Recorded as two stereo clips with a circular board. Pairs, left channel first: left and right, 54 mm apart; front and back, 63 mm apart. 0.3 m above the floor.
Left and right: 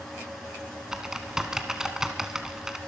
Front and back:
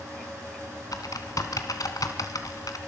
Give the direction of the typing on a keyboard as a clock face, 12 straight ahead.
12 o'clock.